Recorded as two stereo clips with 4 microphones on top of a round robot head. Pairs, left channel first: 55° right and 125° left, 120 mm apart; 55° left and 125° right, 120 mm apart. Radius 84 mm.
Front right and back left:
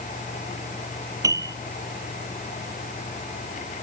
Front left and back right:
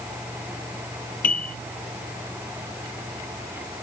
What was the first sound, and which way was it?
A piano, 60° left.